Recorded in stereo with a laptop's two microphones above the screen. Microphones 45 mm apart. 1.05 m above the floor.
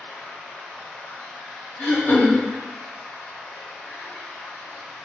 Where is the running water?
65° left (ahead or behind), 1.4 m.